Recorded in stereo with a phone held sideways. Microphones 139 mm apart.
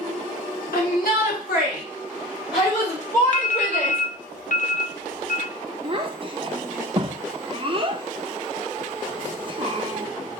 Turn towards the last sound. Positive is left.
turn(degrees=-35)  # may be behind; listen again after turning